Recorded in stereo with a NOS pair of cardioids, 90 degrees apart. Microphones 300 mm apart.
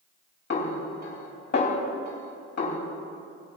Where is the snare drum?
35° left, 3 m.